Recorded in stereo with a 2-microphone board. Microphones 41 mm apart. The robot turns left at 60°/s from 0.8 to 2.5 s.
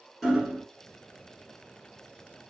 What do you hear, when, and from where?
0.2 s hammering: centre (ahead or behind), 1.5 m